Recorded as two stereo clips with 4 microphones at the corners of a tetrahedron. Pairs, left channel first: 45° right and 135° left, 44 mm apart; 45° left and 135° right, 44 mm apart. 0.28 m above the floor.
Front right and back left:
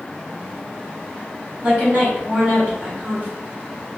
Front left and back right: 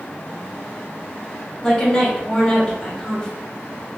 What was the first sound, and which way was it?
A woman speaking, 110° left.